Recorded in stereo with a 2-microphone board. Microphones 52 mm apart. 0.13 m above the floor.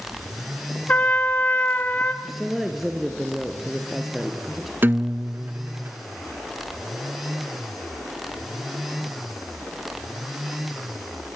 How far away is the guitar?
About 0.5 m.